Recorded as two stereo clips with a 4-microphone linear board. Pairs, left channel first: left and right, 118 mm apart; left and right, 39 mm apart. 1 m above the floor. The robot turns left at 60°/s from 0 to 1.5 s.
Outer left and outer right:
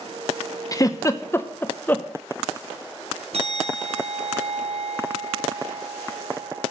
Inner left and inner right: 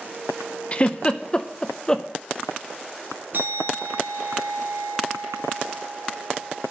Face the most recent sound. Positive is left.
turn(degrees=-55)  # may be behind; listen again after turning